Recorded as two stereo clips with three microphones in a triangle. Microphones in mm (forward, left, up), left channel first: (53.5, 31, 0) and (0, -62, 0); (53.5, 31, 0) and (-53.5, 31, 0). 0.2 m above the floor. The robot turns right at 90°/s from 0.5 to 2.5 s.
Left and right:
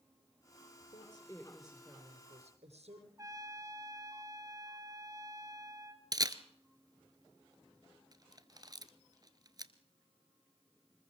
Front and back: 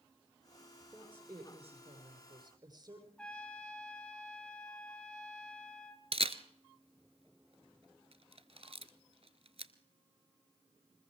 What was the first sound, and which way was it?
A woman speaking, 90° left.